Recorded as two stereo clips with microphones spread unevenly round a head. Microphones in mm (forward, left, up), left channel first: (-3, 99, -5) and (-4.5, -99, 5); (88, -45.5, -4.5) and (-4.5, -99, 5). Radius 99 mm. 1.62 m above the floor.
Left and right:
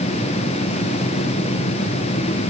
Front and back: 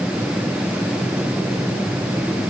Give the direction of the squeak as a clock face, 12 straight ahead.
No squeak in this recording.